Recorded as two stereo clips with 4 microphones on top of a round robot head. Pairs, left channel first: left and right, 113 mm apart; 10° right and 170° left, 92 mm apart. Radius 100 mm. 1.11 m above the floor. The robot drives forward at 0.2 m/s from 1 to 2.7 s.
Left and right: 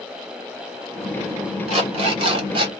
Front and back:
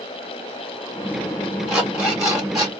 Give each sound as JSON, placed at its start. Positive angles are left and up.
{"t": 1.7, "sound": "an alarm clock", "azimuth_deg": -110, "distance_m": 0.8}